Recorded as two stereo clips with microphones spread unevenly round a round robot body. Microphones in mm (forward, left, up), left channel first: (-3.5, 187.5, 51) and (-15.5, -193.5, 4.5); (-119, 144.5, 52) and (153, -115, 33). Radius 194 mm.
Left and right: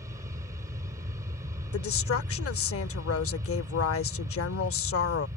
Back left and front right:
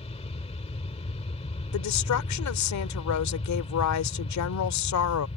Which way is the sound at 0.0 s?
160° right.